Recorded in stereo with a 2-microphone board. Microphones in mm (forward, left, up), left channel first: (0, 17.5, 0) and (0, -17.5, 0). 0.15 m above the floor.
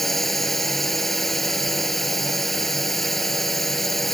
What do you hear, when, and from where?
0.0 s a drone: 10° left (ahead or behind)